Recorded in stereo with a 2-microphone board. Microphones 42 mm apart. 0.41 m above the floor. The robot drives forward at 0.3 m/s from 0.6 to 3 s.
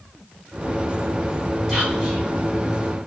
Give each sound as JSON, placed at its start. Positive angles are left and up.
{"t": 1.7, "sound": "whispering", "side_deg": -5, "distance_m": 1.5}